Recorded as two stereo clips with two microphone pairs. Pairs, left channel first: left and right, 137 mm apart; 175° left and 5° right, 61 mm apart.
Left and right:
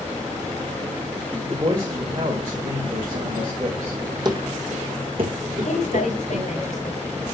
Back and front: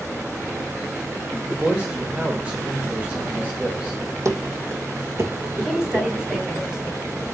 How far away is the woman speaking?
About 3.5 m.